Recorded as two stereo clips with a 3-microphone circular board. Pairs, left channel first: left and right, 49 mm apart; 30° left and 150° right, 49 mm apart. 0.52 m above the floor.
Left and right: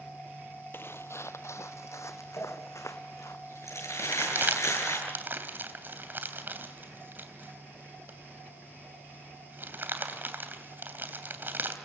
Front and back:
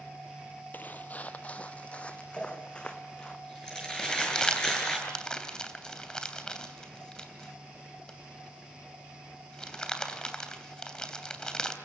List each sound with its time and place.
0.7 s footsteps: 70° left, 0.8 m; by 3.4 s 105° left, 2.5 m
2.4 s crumpling: 110° left, 8.5 m
4.0 s crumpling: 40° right, 3 m